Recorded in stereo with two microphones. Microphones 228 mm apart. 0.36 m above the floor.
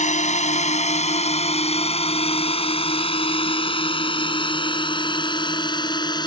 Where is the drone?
30° left (ahead or behind); by 6.3 s 20° left (ahead or behind).